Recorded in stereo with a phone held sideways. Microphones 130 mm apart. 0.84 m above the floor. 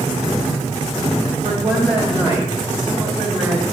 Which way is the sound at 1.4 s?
50° right (ahead or behind).